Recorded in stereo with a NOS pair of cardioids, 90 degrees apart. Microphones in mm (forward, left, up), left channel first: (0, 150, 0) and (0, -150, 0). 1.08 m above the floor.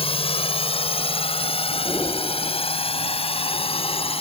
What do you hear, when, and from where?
0.0 s a drone: 20° left
1.9 s breathing: 10° left